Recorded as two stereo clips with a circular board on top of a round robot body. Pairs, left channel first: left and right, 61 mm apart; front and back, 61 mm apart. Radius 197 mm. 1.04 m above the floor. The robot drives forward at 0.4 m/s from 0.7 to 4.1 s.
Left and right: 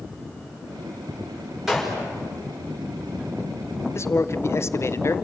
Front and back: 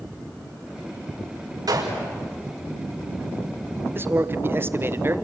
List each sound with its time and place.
1.7 s a gunshot: 175° right, 6 m
4.0 s a man speaking: 125° left, 1.5 m; by 5.2 s 130° left, 1.5 m